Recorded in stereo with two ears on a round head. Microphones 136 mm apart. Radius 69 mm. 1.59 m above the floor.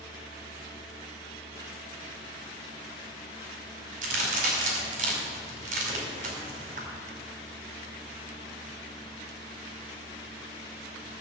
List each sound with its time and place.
4.0 s a crack: 50° right (ahead or behind), 5 m